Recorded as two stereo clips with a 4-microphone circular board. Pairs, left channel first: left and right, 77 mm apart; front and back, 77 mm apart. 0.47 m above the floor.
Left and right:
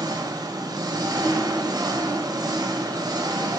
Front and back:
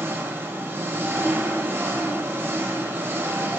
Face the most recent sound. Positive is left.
turn(degrees=-120)